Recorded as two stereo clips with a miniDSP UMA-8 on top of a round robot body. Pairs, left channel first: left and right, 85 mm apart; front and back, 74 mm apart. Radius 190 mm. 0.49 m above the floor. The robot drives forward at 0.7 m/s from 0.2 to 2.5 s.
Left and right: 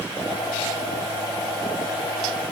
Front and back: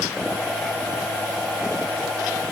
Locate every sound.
Only background noise.